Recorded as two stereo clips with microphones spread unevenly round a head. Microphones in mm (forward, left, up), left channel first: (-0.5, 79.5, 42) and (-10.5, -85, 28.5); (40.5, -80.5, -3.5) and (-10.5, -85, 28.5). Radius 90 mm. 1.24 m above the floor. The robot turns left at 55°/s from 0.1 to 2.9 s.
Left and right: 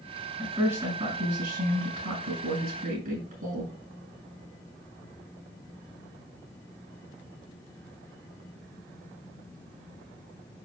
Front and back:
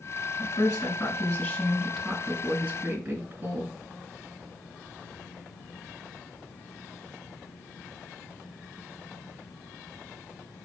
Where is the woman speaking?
Straight ahead, 6.5 m; by 3.7 s 140° right, 6.5 m.